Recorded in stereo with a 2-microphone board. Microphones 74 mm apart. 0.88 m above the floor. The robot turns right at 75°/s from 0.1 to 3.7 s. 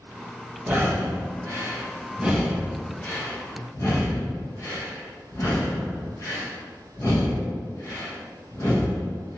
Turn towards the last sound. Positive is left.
turn(degrees=45)  # may be behind; listen again after turning